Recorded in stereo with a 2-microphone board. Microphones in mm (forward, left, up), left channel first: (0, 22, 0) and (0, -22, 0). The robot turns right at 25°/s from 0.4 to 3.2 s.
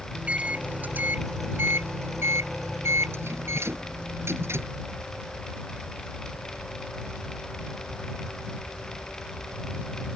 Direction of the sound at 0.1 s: 150° right.